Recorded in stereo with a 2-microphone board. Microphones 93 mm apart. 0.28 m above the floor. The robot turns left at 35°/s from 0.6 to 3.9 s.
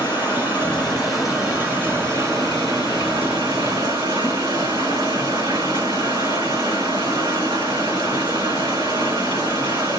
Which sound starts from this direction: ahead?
Running water, at 0.0 s.